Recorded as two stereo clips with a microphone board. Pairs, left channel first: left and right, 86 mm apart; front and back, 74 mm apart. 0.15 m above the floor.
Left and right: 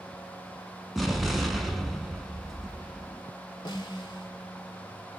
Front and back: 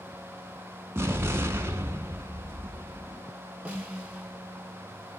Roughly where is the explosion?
Behind.